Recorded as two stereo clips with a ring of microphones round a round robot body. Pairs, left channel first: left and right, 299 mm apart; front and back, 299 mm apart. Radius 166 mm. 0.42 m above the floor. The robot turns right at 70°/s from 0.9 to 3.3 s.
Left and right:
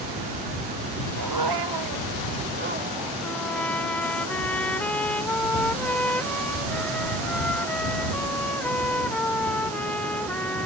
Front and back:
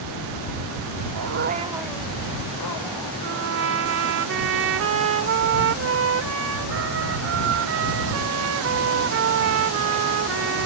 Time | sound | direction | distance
1.1 | a dog barking | 140° right | ?
3.2 | a trumpet | 170° left | ?